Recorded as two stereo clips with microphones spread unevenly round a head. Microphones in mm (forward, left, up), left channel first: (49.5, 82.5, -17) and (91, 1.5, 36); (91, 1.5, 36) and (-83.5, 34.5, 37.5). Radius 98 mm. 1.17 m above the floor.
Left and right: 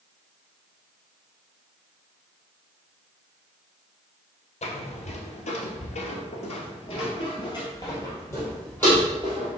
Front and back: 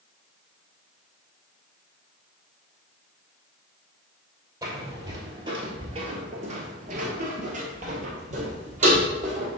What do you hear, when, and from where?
4.6 s footsteps: 100° left, 1.8 m; by 9.6 s 135° right, 2 m